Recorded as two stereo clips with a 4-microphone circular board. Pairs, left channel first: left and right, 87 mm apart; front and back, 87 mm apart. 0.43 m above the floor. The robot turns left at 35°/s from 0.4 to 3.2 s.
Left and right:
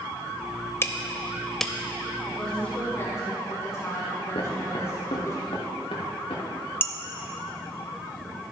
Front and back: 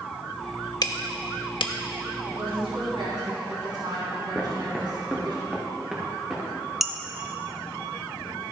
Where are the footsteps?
100° left, 2.5 m.